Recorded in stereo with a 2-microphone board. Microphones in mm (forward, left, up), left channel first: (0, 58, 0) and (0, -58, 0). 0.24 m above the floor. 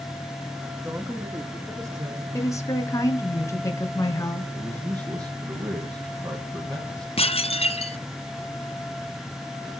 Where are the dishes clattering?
55° left (ahead or behind), 1.5 m.